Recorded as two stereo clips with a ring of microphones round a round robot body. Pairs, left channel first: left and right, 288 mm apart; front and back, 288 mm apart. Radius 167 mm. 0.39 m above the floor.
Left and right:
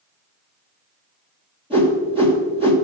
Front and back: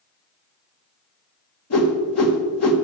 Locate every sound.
1.7 s a whoosh: 20° right, 1.8 m